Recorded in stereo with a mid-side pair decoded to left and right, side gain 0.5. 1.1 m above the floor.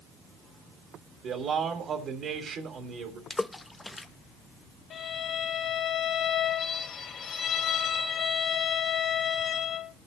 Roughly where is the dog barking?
I don't hear a dog barking.